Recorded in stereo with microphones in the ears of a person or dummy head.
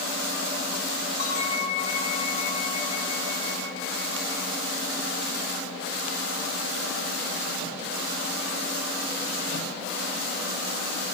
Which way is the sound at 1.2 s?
55° left (ahead or behind).